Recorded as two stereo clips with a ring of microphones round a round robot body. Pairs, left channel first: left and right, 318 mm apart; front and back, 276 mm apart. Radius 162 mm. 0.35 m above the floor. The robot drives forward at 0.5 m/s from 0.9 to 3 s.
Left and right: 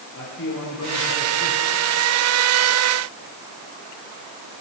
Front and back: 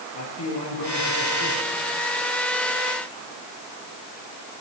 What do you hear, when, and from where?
0.1 s a man speaking: 30° left, 8 m; by 1.7 s 35° left, 7.5 m